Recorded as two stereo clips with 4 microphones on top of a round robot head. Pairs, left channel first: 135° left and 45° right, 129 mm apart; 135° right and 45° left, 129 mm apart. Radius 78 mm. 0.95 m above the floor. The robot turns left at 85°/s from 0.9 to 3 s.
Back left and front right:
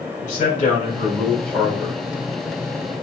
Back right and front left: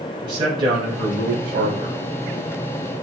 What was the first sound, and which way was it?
A man speaking, 105° left.